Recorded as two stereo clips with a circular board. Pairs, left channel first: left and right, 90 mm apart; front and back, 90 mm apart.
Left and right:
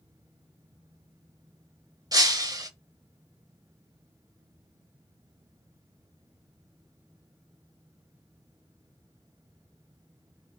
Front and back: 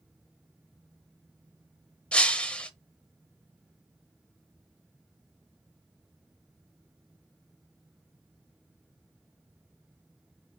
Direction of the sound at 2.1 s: 70° right.